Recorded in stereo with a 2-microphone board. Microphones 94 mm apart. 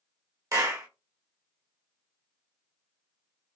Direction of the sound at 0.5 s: 35° right (ahead or behind).